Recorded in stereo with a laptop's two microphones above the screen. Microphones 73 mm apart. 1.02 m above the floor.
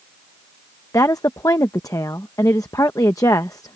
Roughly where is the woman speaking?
Left.